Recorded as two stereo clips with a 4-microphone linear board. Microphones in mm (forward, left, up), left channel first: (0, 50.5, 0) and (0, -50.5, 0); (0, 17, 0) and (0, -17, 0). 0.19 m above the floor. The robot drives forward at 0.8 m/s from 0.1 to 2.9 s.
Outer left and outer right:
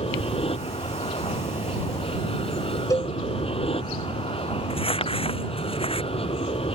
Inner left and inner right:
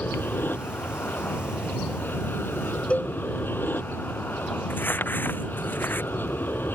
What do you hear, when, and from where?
0.0 s an aircraft: 70° left (ahead or behind); by 6.8 s 75° left (ahead or behind)
2.9 s a cowbell: 35° left (ahead or behind)
4.7 s crumpling: 70° left (ahead or behind)